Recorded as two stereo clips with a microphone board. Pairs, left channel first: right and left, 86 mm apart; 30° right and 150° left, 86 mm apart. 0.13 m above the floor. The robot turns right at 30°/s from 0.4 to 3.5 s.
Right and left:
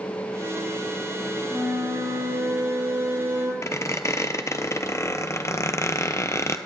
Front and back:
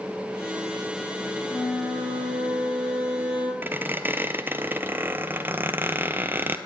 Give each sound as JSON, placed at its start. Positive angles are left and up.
{"t": 1.5, "sound": "a flute", "azimuth_deg": 5, "distance_m": 6.5}
{"t": 3.6, "sound": "a squeak", "azimuth_deg": -145, "distance_m": 0.6}